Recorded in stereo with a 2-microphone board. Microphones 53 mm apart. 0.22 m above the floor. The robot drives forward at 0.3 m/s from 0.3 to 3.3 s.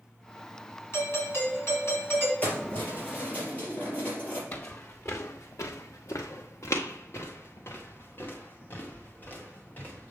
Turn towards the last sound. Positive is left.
turn(degrees=30)  # may be behind; listen again after turning